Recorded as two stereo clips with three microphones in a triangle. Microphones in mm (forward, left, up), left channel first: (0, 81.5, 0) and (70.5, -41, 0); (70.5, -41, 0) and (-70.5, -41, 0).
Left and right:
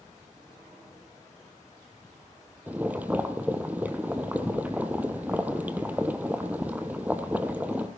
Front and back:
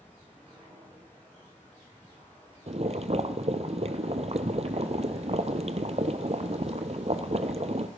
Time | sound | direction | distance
2.7 | boiling | 140° right | 0.9 m